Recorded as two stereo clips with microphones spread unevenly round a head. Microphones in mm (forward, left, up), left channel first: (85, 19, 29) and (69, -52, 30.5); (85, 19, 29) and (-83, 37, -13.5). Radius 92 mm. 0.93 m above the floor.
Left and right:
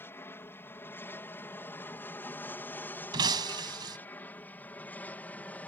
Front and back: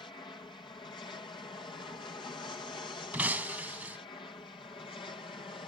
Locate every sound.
0.0 s an aircraft: 60° left; by 5.7 s 50° left
3.1 s breaking glass: 100° right